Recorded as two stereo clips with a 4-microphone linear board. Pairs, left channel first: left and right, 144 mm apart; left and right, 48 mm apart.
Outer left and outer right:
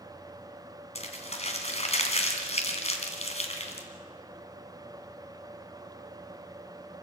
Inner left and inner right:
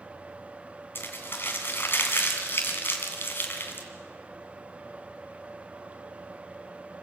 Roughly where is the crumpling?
Left.